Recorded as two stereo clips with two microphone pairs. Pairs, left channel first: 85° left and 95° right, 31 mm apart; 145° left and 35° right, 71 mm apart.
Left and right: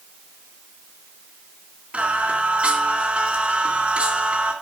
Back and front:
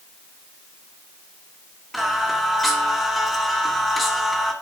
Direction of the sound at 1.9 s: 125° right.